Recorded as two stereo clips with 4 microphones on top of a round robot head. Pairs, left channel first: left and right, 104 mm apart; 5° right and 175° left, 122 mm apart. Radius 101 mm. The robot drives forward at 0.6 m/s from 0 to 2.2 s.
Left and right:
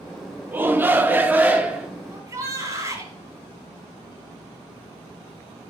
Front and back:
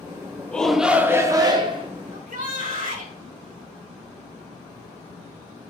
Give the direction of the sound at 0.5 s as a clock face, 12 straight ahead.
2 o'clock.